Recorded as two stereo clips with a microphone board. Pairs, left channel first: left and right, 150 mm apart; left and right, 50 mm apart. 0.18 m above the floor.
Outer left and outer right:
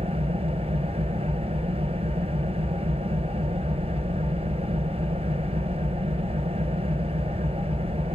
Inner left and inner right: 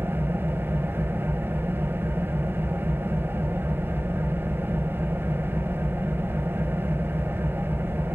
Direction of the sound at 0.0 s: 45° right (ahead or behind).